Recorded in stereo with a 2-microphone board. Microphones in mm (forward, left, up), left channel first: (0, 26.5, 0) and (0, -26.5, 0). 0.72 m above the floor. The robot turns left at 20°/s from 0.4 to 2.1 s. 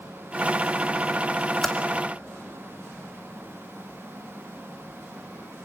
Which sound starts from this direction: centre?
Typing on a keyboard, at 1.6 s.